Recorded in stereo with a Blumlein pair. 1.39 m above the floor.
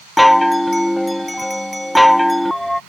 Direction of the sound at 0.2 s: Straight ahead.